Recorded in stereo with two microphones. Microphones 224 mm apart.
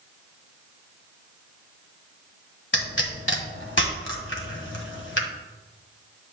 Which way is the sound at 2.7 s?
60° left (ahead or behind).